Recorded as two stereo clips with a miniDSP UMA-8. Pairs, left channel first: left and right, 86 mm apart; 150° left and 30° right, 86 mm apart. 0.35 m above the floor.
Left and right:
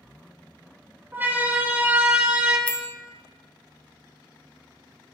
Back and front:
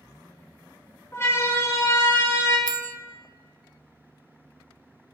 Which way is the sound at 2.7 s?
160° left.